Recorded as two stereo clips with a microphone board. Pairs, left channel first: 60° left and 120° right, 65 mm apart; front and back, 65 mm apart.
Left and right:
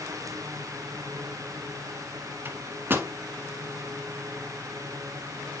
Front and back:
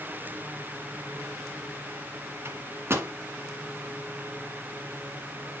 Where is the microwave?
155° right, 1.4 m.